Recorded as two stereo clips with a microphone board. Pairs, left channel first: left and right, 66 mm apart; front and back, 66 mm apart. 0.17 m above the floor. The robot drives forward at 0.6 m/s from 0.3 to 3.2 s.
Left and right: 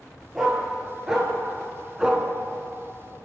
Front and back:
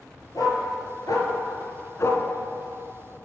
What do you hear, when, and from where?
0.3 s a dog barking: 5° right, 1.7 m; by 2.2 s 15° right, 0.7 m